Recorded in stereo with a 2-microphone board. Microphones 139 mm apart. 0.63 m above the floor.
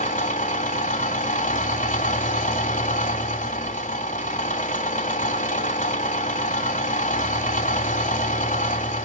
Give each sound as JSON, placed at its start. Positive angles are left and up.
{"t": 0.0, "sound": "an engine running", "side_deg": 65, "distance_m": 2.0}